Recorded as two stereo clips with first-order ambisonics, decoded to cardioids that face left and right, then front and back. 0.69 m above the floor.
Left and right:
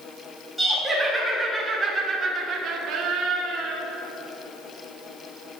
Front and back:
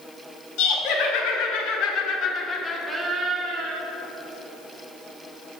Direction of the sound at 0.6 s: Straight ahead.